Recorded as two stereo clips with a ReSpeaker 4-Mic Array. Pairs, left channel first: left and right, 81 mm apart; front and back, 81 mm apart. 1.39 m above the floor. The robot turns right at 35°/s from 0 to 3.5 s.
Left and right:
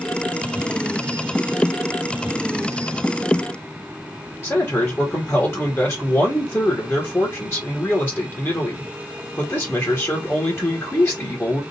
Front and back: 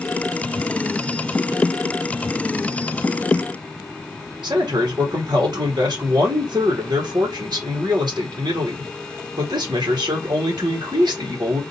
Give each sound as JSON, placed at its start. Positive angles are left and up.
{"t": 4.4, "sound": "a man speaking", "azimuth_deg": 150, "distance_m": 1.6}